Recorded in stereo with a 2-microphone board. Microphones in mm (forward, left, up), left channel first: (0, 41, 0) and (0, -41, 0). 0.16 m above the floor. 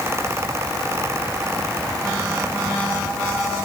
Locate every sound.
Only background noise.